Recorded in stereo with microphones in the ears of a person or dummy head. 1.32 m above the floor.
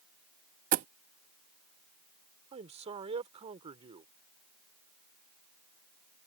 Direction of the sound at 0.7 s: 45° right (ahead or behind).